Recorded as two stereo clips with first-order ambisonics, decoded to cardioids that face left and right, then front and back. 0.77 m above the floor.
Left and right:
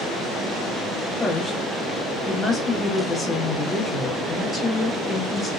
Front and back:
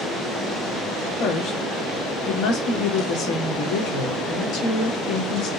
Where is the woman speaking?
5° left, 1.3 m.